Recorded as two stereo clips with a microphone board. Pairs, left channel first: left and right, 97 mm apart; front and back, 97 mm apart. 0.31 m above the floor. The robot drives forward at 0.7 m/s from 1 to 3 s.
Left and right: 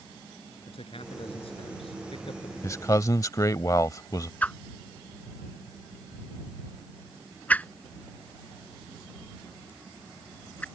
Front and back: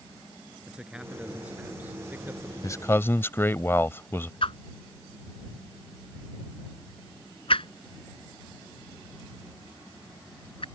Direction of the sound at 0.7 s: 100° left.